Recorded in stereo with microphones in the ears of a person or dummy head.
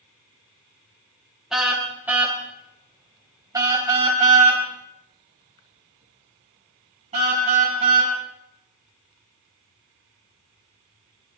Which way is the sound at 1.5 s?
5° right (ahead or behind).